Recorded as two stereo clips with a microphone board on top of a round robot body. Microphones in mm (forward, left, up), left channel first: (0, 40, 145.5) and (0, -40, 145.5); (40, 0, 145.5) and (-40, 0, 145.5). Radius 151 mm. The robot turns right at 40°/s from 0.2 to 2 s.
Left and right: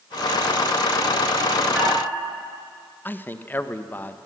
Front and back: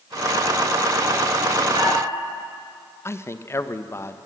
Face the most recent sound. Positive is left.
turn(degrees=35)